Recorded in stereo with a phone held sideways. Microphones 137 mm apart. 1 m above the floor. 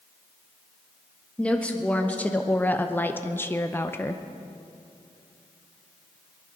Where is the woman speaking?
10° left (ahead or behind), 1.6 m; by 4.2 s 15° left (ahead or behind), 0.7 m.